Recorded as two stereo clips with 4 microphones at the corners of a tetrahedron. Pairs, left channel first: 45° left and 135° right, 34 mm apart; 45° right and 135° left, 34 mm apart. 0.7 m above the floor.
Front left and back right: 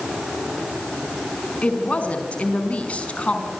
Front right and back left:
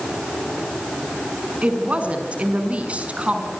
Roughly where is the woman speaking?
Left.